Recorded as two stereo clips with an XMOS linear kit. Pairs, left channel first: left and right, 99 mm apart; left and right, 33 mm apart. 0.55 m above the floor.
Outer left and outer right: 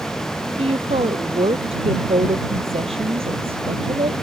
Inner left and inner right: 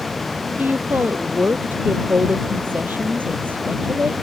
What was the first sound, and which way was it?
A woman speaking, 75° right (ahead or behind).